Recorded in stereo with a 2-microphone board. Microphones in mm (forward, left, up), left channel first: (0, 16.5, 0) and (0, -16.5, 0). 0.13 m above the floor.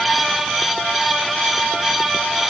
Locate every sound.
Only background noise.